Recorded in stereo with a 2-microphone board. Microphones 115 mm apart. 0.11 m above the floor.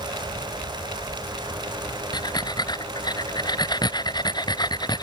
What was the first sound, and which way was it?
Breathing, 40° left (ahead or behind).